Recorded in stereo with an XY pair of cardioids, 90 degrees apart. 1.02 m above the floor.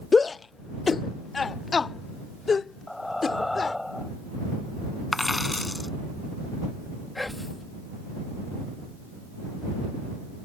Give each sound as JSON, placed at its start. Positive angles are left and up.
{"t": 0.1, "sound": "a shout", "azimuth_deg": 35}
{"t": 2.9, "sound": "breathing", "azimuth_deg": 10}
{"t": 5.1, "sound": "a dropped coin", "azimuth_deg": 20}
{"t": 7.2, "sound": "whispering", "azimuth_deg": 20}